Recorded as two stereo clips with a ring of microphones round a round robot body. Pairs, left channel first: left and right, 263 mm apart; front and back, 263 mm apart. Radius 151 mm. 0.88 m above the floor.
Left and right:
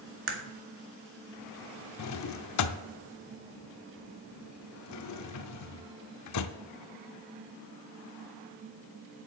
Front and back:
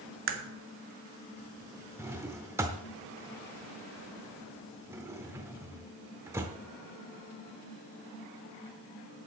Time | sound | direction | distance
0.3 | a crack | 135° right | 1.7 m
2.0 | a drawer | 100° left | 0.6 m